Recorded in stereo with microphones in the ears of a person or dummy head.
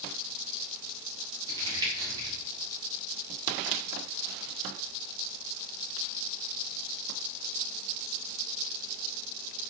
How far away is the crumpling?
About 4 m.